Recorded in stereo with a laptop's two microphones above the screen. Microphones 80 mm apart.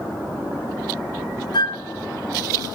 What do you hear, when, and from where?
1.5 s a flute: 60° left (ahead or behind), 1.2 m